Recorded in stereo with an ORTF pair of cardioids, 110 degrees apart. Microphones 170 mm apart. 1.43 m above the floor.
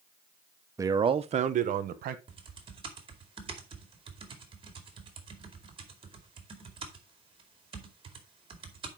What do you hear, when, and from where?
0.8 s a man speaking: 15° right, 0.8 m; by 2.2 s 60° right, 1.5 m
2.3 s typing on a keyboard: 30° right, 2.5 m